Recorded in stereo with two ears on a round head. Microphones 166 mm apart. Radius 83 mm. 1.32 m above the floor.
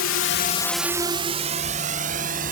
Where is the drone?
85° left; by 2.5 s 45° right (ahead or behind).